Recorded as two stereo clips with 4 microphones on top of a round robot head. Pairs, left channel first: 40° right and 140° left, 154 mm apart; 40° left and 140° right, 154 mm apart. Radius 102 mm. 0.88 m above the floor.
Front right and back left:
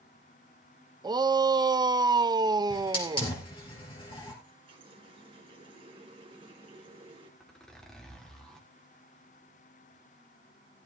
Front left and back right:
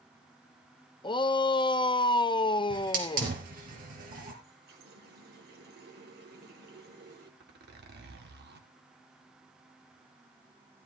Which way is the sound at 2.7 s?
105° right.